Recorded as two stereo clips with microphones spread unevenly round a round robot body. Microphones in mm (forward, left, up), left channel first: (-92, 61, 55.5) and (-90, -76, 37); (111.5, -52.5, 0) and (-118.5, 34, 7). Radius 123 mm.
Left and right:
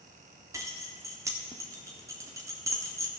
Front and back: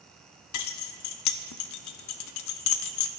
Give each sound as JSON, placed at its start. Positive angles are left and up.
{"t": 0.5, "sound": "keys jangling", "azimuth_deg": -20, "distance_m": 0.6}